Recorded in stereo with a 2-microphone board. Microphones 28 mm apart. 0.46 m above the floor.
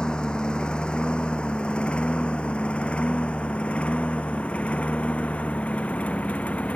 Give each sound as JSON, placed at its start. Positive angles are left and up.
{"t": 0.0, "sound": "a lawn mower", "side_deg": 35}